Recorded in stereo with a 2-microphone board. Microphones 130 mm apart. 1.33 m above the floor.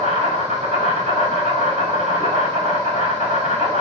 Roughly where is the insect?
Right.